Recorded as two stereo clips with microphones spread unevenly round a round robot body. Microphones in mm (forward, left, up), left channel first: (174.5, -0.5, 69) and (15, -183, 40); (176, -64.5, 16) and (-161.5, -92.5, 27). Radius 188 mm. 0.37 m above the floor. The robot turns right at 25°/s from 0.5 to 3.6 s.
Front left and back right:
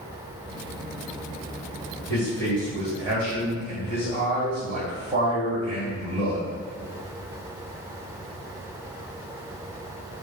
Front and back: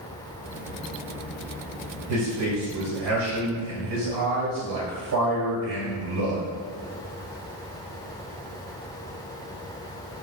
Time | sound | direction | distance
2.1 | a man speaking | 130° left | 1.5 m